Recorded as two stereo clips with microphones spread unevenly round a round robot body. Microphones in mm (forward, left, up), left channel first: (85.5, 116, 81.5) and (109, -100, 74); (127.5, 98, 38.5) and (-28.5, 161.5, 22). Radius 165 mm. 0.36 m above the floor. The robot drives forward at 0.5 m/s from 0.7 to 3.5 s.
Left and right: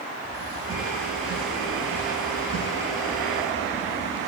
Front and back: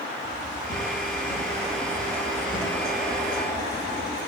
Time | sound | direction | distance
0.2 | footsteps | 60° right | 7.5 m